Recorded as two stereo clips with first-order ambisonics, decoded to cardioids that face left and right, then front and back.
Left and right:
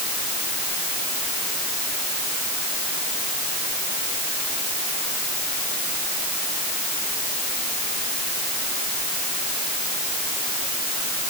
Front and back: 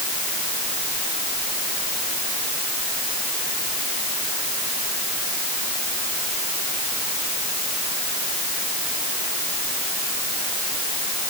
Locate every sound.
Only background noise.